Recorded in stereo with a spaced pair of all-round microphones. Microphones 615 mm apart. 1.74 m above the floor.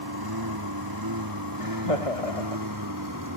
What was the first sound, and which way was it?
A lawn mower, 35° right (ahead or behind).